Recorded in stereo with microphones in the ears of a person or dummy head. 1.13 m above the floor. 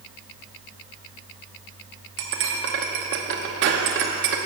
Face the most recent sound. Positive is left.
turn(degrees=-60)  # may be behind; listen again after turning